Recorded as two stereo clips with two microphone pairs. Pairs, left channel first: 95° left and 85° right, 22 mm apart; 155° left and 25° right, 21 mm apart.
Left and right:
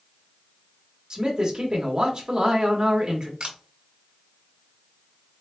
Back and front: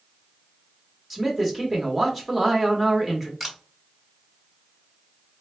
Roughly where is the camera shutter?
Right.